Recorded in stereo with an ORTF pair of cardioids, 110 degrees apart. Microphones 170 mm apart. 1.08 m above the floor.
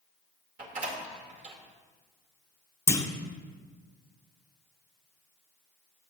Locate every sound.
0.6 s a door slam: 50° right, 2.5 m
2.9 s a clunk: 15° left, 1.1 m